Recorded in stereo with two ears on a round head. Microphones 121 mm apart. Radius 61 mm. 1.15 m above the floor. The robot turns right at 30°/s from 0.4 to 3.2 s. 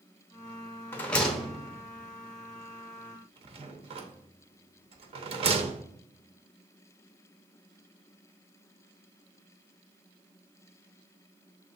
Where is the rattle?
15° left (ahead or behind), 0.8 m; by 5.9 s 45° right (ahead or behind), 0.8 m.